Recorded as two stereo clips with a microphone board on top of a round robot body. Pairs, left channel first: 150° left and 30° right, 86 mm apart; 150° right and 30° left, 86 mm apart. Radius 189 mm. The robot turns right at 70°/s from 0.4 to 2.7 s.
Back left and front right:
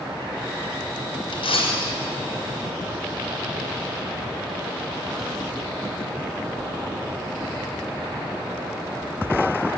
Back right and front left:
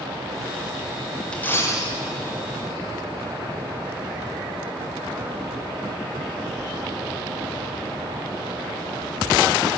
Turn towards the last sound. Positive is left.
turn(degrees=-135)